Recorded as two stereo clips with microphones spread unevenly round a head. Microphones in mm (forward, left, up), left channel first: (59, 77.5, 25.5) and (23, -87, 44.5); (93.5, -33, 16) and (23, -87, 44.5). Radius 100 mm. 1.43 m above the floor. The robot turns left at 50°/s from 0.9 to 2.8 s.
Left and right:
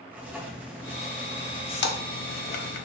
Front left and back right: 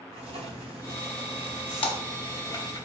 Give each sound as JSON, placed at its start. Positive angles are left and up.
{"t": 0.1, "sound": "writing", "azimuth_deg": 175, "distance_m": 0.9}
{"t": 1.8, "sound": "a splash", "azimuth_deg": 60, "distance_m": 1.0}